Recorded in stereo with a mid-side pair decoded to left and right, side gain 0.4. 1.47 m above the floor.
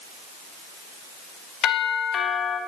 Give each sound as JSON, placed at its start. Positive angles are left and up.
{"t": 1.6, "sound": "a doorbell", "azimuth_deg": 65, "distance_m": 2.5}